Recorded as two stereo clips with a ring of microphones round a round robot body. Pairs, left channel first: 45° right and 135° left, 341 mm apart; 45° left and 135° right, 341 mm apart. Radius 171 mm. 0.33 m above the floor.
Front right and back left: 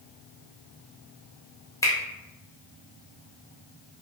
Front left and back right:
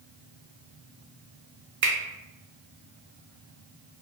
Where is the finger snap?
120° right, 0.7 m.